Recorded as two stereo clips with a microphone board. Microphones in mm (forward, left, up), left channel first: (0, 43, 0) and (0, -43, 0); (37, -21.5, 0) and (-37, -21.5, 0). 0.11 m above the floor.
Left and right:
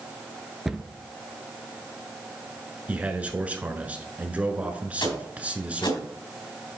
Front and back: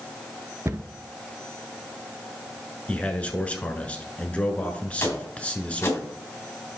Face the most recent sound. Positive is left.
turn(degrees=60)